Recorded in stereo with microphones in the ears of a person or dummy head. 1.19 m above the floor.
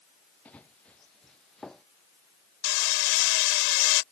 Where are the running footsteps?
5° left (ahead or behind).